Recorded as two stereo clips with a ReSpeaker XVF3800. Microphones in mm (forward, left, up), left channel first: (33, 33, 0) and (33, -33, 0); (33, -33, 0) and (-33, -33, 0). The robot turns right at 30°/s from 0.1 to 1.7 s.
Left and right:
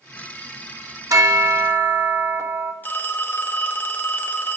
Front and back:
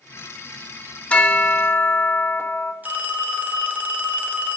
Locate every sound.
1.1 s a bell: 70° right, 0.8 m; by 2.7 s 50° right, 0.8 m
2.8 s a phone ringing: 130° left, 0.7 m